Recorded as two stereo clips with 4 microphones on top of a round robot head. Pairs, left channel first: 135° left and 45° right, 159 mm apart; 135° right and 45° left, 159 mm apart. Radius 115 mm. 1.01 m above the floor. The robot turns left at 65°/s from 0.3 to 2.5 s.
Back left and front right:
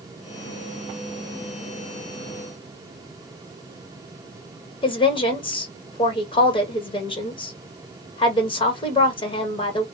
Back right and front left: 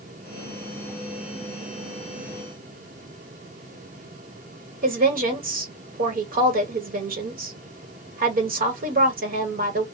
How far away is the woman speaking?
About 1.2 m.